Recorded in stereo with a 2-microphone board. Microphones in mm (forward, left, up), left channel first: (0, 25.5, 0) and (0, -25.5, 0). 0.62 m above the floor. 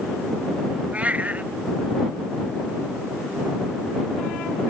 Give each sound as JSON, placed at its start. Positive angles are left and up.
{"t": 0.9, "sound": "a cat meowing", "side_deg": -25}